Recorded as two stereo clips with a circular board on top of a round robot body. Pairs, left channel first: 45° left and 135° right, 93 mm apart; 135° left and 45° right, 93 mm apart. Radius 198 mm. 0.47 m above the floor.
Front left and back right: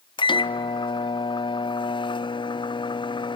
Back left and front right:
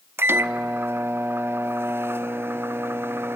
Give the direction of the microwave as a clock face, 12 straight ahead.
11 o'clock.